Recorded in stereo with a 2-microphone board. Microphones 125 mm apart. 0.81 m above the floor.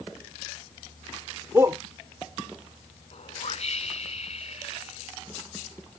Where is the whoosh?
55° left (ahead or behind).